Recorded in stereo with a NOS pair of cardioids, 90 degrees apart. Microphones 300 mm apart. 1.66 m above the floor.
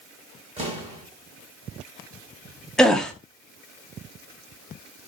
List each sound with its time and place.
0.6 s an explosion: 20° right, 2.5 m
2.8 s a gasp: straight ahead, 0.7 m